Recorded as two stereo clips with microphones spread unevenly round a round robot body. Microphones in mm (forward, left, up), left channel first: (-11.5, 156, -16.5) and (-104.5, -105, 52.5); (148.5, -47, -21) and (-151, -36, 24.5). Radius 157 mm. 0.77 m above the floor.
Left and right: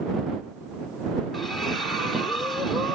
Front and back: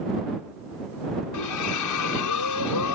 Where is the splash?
15° right.